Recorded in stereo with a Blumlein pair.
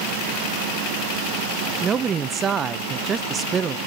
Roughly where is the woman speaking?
Ahead.